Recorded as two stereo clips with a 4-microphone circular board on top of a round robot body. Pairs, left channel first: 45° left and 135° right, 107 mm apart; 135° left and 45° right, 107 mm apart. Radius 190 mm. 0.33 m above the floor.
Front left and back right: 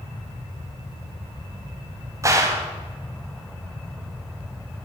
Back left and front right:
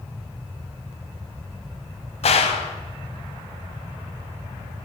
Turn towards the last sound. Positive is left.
turn(degrees=160)